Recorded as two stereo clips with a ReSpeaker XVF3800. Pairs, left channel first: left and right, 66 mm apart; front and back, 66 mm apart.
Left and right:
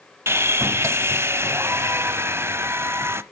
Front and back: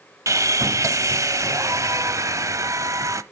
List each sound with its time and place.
0.3 s sawing: 140° right, 0.7 m